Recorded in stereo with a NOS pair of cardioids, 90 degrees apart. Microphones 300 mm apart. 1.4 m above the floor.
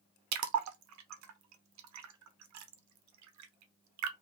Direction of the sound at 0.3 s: 65° right.